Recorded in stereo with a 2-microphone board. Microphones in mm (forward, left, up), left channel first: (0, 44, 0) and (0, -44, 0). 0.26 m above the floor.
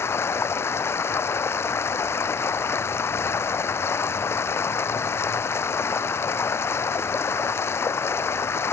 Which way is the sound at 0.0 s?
30° left (ahead or behind).